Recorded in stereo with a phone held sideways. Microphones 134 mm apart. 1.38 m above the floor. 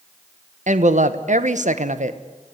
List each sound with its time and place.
0.7 s a woman speaking: 65° right (ahead or behind), 1.2 m